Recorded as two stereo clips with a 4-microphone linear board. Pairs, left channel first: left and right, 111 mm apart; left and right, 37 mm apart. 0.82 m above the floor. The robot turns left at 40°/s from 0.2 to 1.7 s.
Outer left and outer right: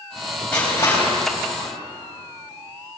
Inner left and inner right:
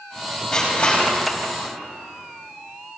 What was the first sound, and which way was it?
Crushing, 10° left (ahead or behind).